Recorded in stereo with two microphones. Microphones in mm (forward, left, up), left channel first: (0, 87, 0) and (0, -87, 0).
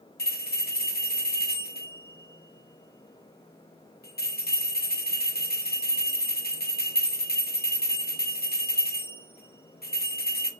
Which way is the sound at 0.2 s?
65° left (ahead or behind).